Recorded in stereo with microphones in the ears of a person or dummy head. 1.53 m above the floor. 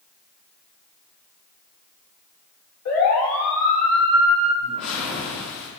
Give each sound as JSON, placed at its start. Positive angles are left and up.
{"t": 2.9, "sound": "a siren", "side_deg": 85, "distance_m": 6.0}
{"t": 4.6, "sound": "a whoosh", "side_deg": 75, "distance_m": 4.5}